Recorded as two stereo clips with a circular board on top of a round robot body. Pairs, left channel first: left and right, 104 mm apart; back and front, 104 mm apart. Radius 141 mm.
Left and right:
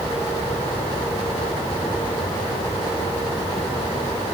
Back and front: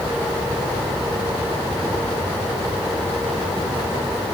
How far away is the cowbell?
I don't hear a cowbell.